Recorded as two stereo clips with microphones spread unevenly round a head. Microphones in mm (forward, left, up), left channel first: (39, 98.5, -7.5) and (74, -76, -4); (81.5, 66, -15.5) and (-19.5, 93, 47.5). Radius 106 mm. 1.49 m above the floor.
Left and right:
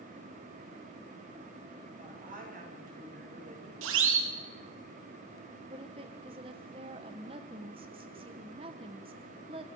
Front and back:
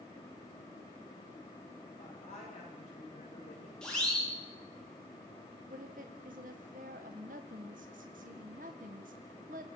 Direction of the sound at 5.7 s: 145° right.